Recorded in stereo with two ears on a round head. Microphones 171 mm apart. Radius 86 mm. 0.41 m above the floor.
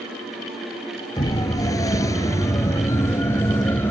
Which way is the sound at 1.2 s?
20° left (ahead or behind).